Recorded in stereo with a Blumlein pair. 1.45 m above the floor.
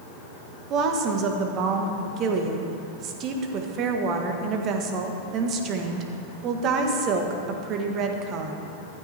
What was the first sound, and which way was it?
A woman speaking, 35° right.